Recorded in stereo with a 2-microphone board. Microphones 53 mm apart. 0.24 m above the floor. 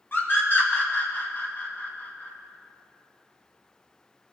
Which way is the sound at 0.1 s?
40° left (ahead or behind).